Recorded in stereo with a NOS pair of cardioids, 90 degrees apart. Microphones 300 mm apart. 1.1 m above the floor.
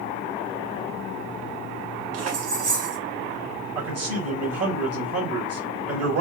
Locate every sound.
2.1 s keys jangling: 55° right, 1.1 m
3.8 s a man speaking: 50° right, 1.5 m